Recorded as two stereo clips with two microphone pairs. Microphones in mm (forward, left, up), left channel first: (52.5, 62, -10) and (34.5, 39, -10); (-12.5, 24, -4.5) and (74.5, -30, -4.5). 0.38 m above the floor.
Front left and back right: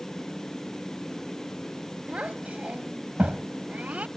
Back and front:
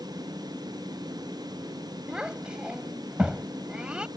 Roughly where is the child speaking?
Right.